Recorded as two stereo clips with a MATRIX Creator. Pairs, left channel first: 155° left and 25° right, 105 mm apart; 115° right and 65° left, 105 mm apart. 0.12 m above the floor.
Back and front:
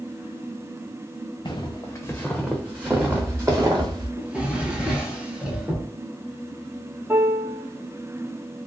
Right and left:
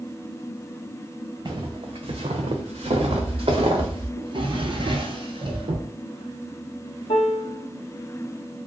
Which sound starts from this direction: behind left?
Footsteps, at 1.4 s.